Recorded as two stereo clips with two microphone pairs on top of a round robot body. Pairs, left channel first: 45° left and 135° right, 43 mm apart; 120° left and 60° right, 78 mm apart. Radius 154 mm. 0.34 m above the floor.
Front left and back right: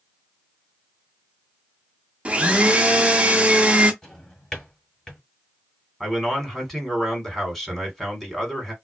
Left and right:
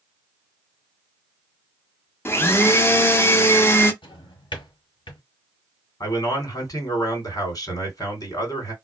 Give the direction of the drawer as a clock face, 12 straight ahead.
8 o'clock.